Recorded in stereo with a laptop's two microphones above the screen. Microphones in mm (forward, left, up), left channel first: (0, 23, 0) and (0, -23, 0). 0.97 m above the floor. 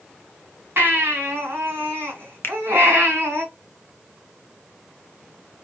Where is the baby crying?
55° right (ahead or behind), 2 m.